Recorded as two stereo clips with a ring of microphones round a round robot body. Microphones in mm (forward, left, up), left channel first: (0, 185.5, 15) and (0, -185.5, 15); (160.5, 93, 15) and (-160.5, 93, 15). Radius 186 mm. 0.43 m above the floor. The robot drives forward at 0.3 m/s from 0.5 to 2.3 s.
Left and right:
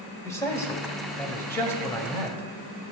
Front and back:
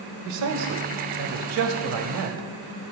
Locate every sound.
0.2 s a man speaking: 170° left, 1.5 m; by 2.4 s 175° left, 2 m